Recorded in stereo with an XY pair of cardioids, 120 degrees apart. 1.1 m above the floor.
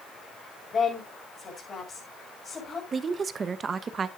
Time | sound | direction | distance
0.7 | a woman speaking | 30° left | 6 m
2.9 | a woman speaking | 35° right | 0.9 m